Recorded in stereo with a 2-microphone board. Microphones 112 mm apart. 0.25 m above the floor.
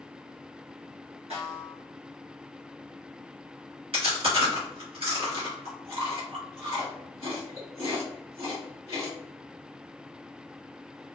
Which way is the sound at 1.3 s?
70° right (ahead or behind).